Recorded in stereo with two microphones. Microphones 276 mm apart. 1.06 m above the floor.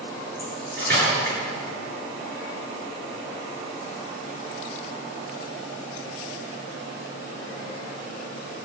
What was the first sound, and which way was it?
Cutlery clinking, 35° right (ahead or behind).